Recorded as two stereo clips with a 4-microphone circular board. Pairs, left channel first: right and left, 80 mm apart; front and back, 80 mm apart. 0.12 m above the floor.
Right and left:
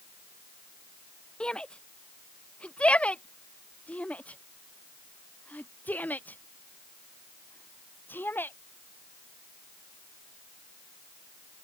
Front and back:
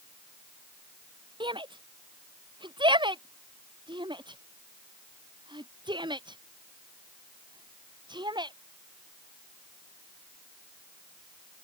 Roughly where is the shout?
Behind.